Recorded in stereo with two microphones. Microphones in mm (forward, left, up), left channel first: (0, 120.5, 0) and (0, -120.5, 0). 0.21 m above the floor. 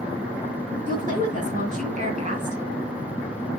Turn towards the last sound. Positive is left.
turn(degrees=-30)  # may be behind; listen again after turning